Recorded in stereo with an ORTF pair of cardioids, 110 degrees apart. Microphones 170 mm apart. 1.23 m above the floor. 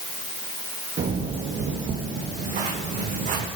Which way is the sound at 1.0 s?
50° right.